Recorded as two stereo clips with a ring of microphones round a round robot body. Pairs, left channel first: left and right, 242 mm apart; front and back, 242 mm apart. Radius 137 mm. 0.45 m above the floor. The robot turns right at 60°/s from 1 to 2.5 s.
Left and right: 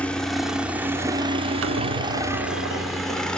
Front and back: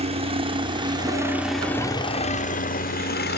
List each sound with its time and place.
0.0 s a helicopter: 170° left; by 3.4 s 5° left
1.6 s a squeak: 110° right; by 3.2 s 55° right